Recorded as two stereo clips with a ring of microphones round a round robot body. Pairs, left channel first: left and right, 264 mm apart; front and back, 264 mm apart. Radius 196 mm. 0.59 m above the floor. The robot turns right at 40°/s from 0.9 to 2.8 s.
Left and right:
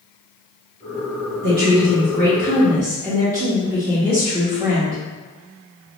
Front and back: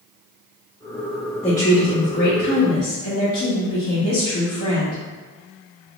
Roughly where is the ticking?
No ticking in this recording.